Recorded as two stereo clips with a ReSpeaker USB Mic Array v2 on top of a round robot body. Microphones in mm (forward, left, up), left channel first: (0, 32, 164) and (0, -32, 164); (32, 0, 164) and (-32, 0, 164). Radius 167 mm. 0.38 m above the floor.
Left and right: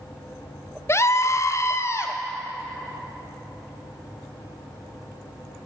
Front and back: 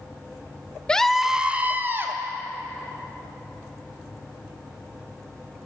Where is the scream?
70° left, 1.0 m; by 2.1 s 135° left, 1.5 m.